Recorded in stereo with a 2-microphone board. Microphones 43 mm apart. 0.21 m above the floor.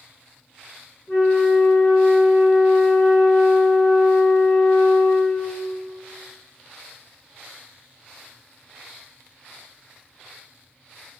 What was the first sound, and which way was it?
A flute, 25° left (ahead or behind).